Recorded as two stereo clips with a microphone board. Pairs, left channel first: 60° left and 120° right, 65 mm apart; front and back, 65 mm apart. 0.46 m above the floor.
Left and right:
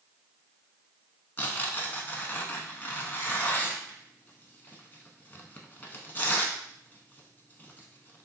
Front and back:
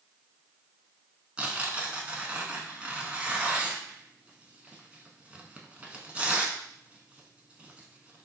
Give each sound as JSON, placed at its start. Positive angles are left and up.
{"t": 1.4, "sound": "tearing paper", "azimuth_deg": 115, "distance_m": 0.6}